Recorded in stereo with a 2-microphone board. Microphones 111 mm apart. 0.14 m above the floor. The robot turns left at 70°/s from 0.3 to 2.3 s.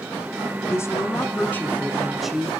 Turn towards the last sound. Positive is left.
turn(degrees=0)  # may be behind; listen again after turning